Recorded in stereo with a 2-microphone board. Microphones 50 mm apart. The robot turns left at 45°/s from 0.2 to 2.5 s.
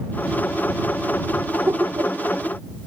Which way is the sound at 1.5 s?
55° right (ahead or behind).